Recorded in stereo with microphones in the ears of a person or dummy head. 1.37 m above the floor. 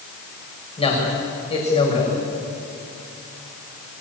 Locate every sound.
0.8 s a man speaking: 35° left (ahead or behind), 7 m